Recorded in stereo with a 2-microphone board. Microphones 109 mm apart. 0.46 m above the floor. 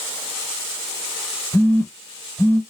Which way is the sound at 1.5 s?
25° left (ahead or behind).